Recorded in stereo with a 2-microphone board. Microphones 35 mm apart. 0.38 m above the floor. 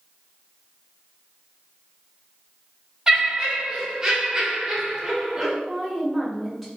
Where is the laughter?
15° right (ahead or behind), 1.6 m.